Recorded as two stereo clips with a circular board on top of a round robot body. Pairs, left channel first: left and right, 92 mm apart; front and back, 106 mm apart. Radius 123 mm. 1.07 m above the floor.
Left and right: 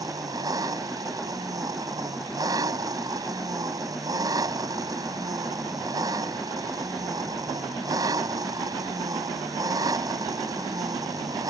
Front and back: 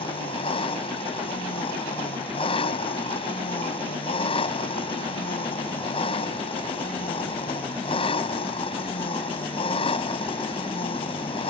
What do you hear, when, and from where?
0.0 s an engine running: 40° right